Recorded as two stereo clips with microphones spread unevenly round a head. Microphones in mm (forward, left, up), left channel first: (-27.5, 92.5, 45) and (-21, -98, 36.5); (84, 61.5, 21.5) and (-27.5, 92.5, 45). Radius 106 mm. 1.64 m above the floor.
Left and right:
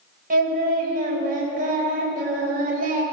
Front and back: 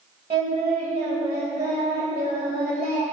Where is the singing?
135° right, 3.5 m.